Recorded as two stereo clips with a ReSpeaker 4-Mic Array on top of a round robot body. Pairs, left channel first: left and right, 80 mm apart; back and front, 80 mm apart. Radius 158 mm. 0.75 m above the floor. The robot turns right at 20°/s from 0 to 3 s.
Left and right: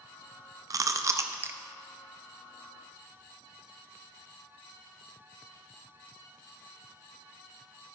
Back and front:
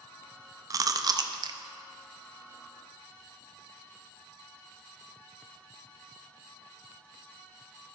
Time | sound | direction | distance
0.7 | chewing | 45° right | 0.5 m